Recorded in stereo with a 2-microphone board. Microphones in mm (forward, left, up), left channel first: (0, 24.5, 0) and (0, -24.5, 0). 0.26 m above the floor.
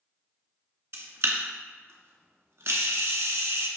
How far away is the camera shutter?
About 0.6 m.